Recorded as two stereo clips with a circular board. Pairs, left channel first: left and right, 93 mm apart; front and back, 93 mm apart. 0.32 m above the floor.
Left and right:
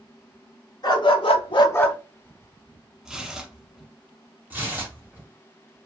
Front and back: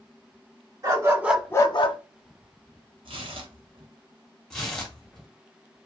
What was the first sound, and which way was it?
A dog barking, 130° left.